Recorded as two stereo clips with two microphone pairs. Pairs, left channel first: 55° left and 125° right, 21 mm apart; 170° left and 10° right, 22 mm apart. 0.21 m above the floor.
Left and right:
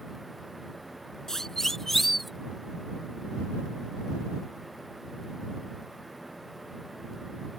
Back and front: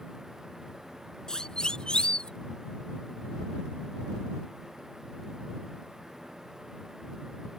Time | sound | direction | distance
1.3 | a siren | 125° left | ?